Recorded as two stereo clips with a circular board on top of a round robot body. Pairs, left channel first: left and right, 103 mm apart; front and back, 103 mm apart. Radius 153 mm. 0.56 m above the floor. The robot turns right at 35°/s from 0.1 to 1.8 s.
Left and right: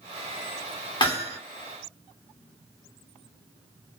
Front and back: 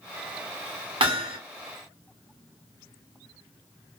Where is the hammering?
135° left, 1.4 m; by 1.4 s 150° left, 1.4 m.